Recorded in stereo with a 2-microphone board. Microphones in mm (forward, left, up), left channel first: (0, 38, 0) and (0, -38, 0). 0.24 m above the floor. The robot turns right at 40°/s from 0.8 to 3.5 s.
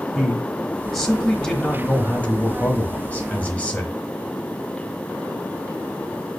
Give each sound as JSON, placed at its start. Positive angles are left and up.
{"t": 0.1, "sound": "a man speaking", "side_deg": 0, "distance_m": 1.0}